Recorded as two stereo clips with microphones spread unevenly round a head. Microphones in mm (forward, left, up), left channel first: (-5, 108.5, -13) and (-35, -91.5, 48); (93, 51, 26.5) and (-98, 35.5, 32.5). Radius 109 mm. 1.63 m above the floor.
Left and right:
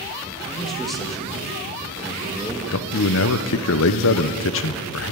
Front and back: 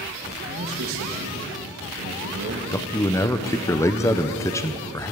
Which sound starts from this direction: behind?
A man speaking, at 0.5 s.